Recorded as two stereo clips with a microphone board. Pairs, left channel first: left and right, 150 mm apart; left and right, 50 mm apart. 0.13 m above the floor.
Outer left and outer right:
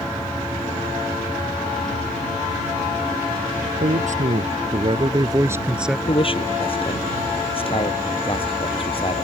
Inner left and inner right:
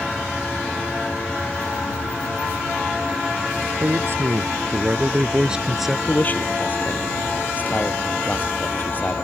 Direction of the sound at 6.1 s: 35° left (ahead or behind).